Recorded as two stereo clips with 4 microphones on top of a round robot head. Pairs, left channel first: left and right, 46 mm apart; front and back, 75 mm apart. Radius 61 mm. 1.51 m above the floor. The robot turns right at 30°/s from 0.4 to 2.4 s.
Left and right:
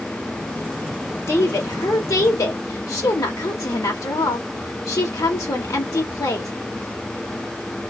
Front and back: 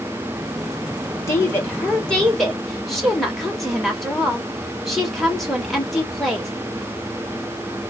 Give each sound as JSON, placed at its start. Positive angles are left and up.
{"t": 1.3, "sound": "a woman speaking", "azimuth_deg": 55, "distance_m": 1.8}